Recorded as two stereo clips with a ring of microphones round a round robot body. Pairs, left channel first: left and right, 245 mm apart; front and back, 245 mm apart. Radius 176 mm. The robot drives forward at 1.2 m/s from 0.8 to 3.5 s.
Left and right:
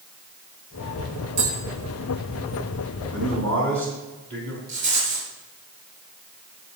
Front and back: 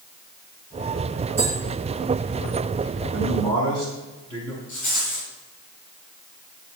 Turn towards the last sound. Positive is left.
turn(degrees=-95)